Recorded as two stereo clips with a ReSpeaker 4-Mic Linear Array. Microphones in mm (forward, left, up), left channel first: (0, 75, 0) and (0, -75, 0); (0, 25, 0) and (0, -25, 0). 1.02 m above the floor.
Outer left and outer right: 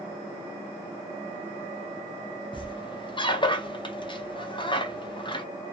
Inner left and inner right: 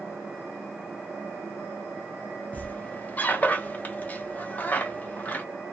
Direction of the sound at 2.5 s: 35° left (ahead or behind).